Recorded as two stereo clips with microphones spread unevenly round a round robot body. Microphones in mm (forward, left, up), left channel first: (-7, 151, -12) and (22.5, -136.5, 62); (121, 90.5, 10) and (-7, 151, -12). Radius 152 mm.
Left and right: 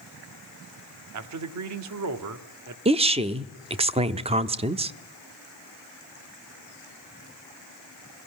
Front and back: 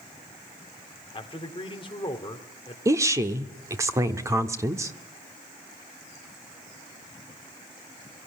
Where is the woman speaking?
165° right, 0.8 m.